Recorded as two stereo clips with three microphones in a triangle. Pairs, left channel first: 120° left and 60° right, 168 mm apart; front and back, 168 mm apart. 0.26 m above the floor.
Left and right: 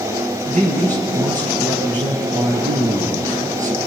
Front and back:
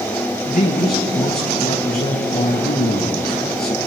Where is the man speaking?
20° right, 6 m.